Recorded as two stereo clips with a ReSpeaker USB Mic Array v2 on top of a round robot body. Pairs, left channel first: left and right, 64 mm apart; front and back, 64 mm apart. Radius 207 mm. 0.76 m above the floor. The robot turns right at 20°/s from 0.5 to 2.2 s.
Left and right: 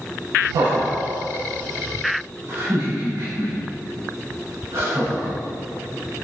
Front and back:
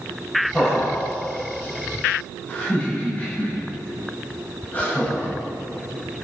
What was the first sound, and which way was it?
Laughter, 95° right.